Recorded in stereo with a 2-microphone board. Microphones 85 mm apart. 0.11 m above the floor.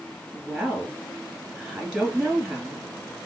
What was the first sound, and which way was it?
A woman speaking, centre (ahead or behind).